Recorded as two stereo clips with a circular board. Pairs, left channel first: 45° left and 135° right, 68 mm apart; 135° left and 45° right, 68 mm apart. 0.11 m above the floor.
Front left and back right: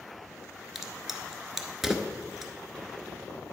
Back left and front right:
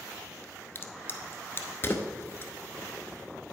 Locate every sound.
0.8 s a crack: 145° left, 0.9 m